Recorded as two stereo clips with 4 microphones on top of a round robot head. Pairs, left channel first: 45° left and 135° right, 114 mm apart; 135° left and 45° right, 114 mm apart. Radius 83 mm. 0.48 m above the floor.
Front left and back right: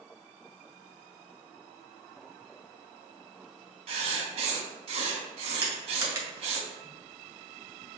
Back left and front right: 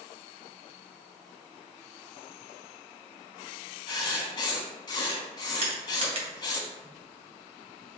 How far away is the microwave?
No microwave in this recording.